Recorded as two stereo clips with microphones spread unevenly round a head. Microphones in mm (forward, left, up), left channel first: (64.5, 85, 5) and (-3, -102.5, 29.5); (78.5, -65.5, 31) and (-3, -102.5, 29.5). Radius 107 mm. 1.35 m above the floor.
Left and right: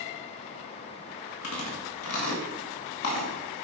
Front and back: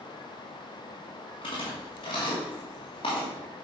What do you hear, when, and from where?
1.4 s chewing: 85° left, 1.8 m